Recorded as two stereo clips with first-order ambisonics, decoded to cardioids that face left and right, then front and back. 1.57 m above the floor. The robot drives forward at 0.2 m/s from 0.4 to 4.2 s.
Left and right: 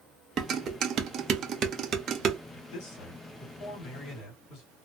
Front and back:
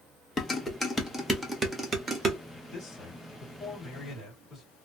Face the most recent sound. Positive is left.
turn(degrees=95)